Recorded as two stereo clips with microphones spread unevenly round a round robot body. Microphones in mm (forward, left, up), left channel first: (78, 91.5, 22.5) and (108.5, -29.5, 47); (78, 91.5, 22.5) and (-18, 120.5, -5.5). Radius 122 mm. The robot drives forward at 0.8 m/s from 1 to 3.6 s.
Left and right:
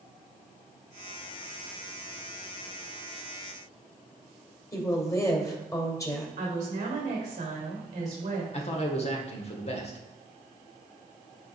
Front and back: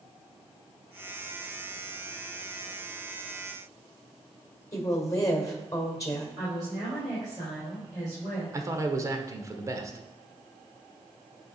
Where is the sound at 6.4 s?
115° right, 3 m.